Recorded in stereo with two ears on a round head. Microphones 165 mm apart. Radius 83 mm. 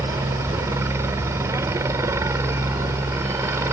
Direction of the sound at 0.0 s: 15° right (ahead or behind).